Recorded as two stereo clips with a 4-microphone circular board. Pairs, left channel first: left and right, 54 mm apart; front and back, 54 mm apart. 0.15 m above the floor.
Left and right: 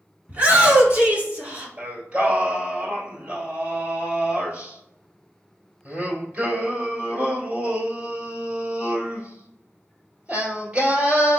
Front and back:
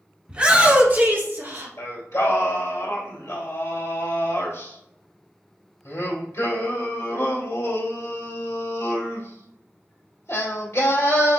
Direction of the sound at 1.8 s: 20° right.